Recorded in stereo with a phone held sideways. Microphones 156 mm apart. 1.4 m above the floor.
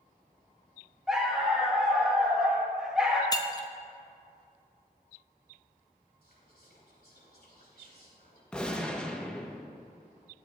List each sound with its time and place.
1.1 s a dog barking: 5° right (ahead or behind), 1.9 m
3.3 s breaking glass: 25° left (ahead or behind), 0.7 m
6.2 s whispering: 85° left, 3.5 m
8.5 s a gunshot: 5° left (ahead or behind), 1.0 m